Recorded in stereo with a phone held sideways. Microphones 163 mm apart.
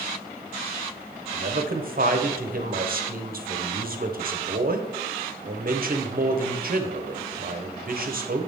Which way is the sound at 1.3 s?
60° right (ahead or behind).